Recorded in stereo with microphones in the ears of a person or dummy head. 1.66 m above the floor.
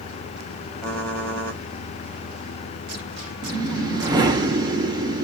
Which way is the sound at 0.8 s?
5° left (ahead or behind).